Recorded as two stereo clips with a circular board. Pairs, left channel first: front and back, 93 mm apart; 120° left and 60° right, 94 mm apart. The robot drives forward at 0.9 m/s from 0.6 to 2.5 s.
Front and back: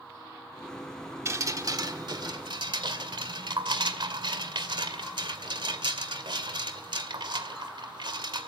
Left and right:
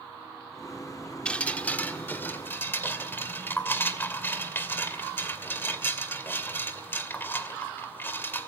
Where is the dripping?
175° right, 1.3 m; by 8.5 s straight behind, 2 m.